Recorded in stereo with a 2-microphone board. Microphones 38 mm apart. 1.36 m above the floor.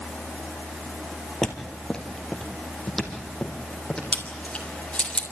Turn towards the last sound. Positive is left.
turn(degrees=30)  # may be behind; listen again after turning